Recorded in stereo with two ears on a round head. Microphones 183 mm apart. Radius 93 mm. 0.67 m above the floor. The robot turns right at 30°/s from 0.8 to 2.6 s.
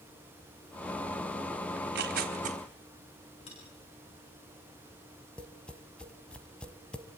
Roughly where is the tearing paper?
Right.